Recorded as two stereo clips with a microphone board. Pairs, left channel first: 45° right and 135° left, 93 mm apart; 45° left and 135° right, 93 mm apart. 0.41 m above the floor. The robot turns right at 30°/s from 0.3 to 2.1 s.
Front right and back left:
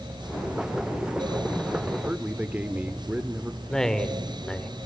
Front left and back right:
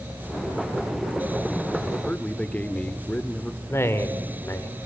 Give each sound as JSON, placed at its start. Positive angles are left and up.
{"t": 2.0, "sound": "a man speaking", "azimuth_deg": 90, "distance_m": 0.8}
{"t": 3.7, "sound": "a man speaking", "azimuth_deg": 30, "distance_m": 1.3}